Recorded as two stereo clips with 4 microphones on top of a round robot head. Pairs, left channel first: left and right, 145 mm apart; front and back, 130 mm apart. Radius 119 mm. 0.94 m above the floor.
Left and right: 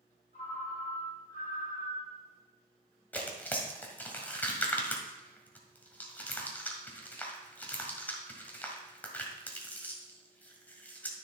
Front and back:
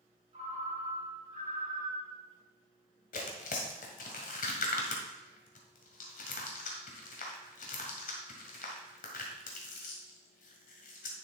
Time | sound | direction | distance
0.3 | a ringtone | 140° left | 4 m
3.1 | tearing paper | 10° left | 1.6 m